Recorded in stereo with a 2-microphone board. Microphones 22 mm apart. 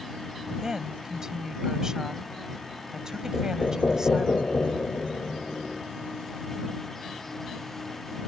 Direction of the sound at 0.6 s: 25° right (ahead or behind).